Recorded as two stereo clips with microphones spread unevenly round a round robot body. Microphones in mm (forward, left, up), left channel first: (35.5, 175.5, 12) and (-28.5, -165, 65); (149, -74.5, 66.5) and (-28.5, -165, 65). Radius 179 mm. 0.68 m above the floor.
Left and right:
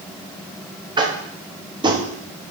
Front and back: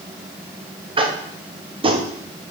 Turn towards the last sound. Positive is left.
turn(degrees=180)